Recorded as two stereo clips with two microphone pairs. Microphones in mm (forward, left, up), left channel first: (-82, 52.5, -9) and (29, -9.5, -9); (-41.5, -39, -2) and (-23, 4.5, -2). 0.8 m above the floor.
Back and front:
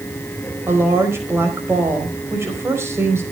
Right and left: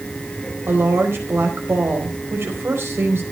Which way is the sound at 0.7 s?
40° left.